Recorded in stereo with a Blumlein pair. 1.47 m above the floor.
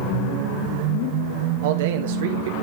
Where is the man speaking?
55° right, 1.5 m.